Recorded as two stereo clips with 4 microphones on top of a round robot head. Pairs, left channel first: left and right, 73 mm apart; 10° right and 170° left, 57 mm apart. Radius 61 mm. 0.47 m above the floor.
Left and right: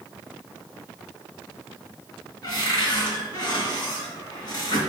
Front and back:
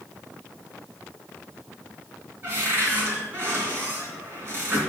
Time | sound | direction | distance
2.4 | a cupboard door | 120° left | 3 m